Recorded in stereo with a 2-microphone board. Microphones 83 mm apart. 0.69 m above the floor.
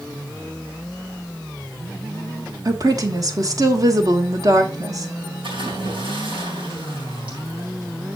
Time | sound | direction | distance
2.6 | a woman speaking | 45° right (ahead or behind) | 1.5 m
5.4 | a splash | 80° right | 4.5 m